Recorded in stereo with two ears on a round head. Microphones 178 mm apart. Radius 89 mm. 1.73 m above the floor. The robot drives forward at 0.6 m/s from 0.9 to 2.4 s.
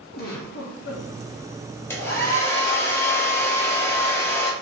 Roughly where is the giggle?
Left.